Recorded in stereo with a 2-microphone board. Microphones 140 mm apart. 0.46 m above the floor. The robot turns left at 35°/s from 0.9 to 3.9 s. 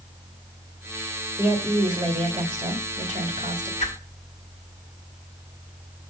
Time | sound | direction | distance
1.4 | a woman speaking | 15° right | 1.6 m
3.8 | a whoosh | 50° left (ahead or behind) | 1.4 m